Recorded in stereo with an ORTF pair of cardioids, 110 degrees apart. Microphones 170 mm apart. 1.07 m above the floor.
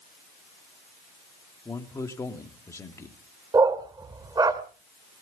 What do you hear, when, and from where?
1.6 s a man speaking: 15° left, 2 m
3.5 s a dog barking: 25° right, 1.6 m